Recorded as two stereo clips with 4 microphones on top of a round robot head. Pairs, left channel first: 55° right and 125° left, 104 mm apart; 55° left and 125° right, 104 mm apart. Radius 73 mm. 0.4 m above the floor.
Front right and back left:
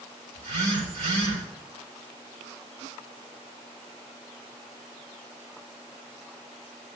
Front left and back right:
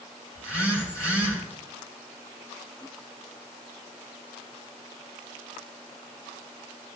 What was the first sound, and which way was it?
A phone buzzing, 120° left.